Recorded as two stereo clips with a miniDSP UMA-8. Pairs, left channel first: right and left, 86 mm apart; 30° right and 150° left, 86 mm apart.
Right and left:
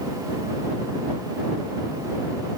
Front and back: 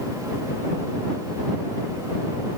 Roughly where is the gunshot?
No gunshot in this recording.